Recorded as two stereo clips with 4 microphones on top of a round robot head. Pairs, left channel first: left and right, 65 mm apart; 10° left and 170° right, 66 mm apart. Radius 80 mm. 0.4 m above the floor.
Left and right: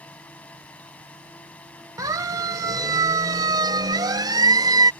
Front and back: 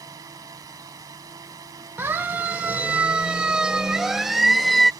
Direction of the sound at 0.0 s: 160° left.